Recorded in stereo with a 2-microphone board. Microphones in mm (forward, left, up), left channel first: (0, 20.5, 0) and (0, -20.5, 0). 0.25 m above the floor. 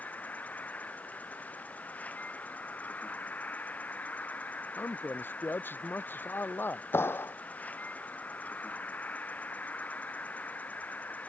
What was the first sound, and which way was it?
An insect, 35° left (ahead or behind).